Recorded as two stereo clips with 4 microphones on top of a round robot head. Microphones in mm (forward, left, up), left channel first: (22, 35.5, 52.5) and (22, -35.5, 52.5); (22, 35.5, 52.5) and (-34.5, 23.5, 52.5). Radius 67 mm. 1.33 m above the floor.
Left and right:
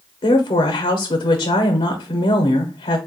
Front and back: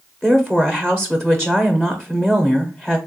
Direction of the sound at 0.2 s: 95° left.